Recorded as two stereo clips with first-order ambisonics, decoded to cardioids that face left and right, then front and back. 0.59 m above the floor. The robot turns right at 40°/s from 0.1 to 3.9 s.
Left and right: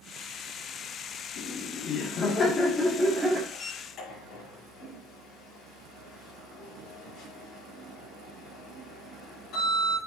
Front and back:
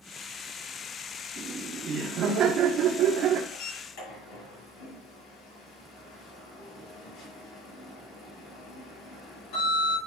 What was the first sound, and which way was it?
Laughter, 115° left.